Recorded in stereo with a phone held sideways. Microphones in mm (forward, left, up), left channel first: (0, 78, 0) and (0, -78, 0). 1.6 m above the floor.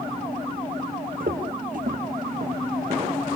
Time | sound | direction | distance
1.2 | footsteps | 65° right (ahead or behind) | 6 m